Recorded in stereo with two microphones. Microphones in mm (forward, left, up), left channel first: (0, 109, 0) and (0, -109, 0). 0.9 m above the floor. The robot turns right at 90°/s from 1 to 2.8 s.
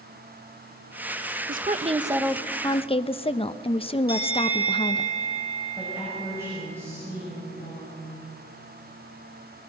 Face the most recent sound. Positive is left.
turn(degrees=-10)  # may be behind; listen again after turning